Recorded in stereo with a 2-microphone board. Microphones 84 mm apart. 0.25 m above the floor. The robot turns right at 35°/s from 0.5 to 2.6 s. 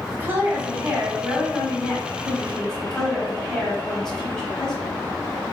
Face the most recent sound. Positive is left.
turn(degrees=10)